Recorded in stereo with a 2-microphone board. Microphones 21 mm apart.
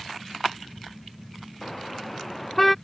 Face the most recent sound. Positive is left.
turn(degrees=5)  # may be behind; listen again after turning